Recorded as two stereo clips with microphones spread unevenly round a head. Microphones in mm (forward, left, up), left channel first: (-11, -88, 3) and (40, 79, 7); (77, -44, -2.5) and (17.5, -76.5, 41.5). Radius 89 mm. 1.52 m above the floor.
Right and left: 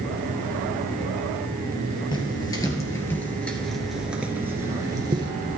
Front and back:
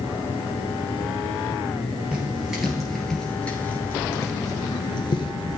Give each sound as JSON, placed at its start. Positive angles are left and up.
{"t": 2.1, "sound": "footsteps", "azimuth_deg": -165, "distance_m": 2.0}